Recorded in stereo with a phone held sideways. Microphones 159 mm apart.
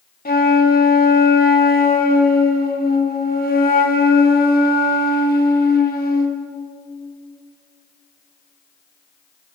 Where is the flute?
70° left (ahead or behind), 3 m.